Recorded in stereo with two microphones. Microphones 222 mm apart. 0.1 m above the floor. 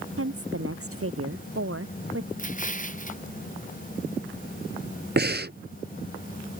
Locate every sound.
0.2 s a woman speaking: 80° right
2.4 s an explosion: 35° left (ahead or behind)
5.2 s breathing: 50° right (ahead or behind)